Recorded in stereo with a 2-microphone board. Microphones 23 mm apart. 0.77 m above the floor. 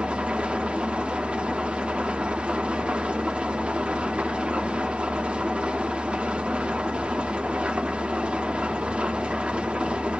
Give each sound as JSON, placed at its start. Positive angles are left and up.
{"t": 0.0, "sound": "an engine running", "side_deg": -55, "distance_m": 0.8}